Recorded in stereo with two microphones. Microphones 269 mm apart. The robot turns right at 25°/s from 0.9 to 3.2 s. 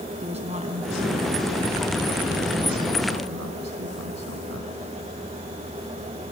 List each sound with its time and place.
0.2 s a woman speaking: 155° right, 2.5 m; by 4.7 s 95° right, 2.5 m